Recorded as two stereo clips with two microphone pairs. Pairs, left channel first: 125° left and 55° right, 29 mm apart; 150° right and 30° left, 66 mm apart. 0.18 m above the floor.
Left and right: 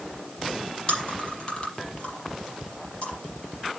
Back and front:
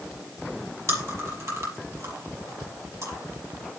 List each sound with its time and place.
0.9 s chewing: 70° left, 6 m